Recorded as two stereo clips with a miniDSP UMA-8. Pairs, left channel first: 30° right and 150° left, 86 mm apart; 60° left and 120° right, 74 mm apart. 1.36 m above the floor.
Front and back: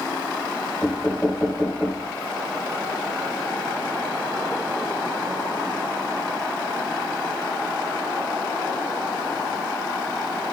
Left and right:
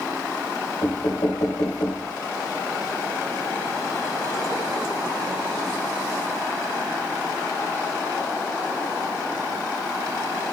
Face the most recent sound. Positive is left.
turn(degrees=40)